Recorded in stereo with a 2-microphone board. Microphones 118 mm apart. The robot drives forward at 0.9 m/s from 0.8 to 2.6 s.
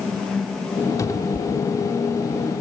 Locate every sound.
1.0 s a cupboard door: 30° left (ahead or behind); by 2.6 s 20° left (ahead or behind)